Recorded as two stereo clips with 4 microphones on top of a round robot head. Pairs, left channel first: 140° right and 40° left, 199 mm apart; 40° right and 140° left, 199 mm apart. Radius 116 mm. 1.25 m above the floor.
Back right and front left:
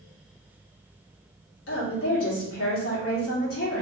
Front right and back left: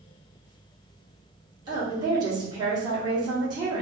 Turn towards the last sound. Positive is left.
turn(degrees=-150)